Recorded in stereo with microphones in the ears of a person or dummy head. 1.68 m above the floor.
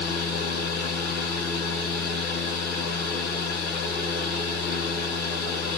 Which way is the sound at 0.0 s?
5° left (ahead or behind).